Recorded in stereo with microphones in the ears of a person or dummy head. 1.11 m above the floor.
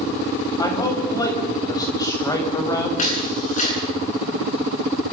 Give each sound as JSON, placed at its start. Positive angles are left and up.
{"t": 0.6, "sound": "a man speaking", "side_deg": 20, "distance_m": 6.5}
{"t": 3.0, "sound": "a camera shutter", "side_deg": 45, "distance_m": 8.5}